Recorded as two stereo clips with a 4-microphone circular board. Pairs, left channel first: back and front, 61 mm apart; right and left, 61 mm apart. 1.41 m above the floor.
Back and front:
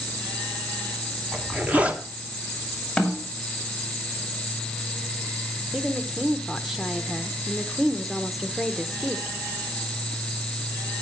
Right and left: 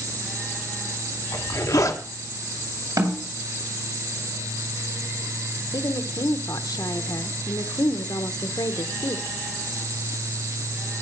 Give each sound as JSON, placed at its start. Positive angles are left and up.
{"t": 1.3, "sound": "a zipper", "azimuth_deg": -65, "distance_m": 1.6}
{"t": 3.0, "sound": "a snare drum", "azimuth_deg": 95, "distance_m": 2.5}
{"t": 5.7, "sound": "a woman speaking", "azimuth_deg": -85, "distance_m": 1.2}